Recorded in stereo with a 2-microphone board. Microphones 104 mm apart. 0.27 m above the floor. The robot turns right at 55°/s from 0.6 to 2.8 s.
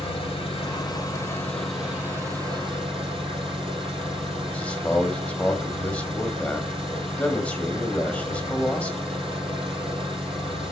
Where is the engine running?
120° left, 5 m; by 10.7 s 120° right, 5 m.